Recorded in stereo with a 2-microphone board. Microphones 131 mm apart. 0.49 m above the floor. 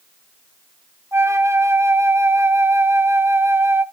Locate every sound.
1.1 s a flute: 20° right (ahead or behind), 0.8 m